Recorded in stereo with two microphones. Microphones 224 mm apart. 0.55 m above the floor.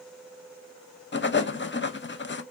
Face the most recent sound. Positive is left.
turn(degrees=55)  # may be behind; listen again after turning